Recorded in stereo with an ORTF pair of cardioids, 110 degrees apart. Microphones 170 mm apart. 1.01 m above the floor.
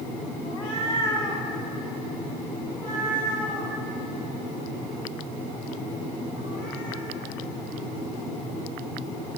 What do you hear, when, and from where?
0.5 s a cat meowing: 30° left, 1.1 m; by 7.0 s 50° left, 4.5 m